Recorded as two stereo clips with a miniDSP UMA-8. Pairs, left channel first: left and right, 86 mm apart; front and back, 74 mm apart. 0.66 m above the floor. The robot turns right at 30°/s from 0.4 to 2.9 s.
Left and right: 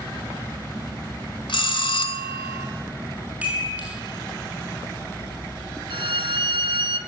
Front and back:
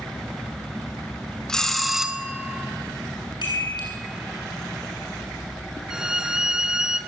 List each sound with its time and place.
1.5 s a bell: 80° left, 1.9 m; by 2.7 s 115° left, 1.9 m
3.4 s a chime: 15° right, 9 m
5.9 s a violin: 100° right, 1.5 m